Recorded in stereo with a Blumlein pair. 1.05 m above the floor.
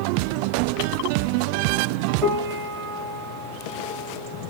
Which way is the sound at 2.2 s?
15° right.